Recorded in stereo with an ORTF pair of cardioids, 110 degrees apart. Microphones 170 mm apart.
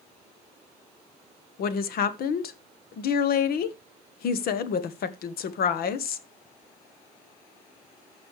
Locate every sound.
1.6 s a woman speaking: 65° left, 1.2 m